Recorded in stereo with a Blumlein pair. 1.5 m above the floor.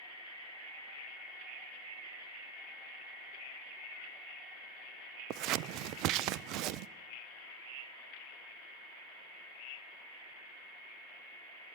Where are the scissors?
40° right, 0.5 m.